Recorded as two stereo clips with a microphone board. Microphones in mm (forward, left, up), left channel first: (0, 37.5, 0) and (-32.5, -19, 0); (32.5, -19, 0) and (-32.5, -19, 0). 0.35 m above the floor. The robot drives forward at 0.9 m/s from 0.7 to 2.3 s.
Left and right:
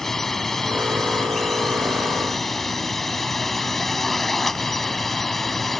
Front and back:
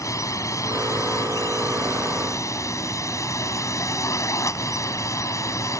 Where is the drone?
25° right.